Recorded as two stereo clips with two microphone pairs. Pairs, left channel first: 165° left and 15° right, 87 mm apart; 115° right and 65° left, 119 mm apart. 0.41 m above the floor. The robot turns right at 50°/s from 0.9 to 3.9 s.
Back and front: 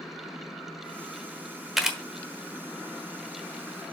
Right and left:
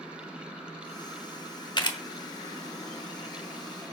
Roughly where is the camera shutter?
Right.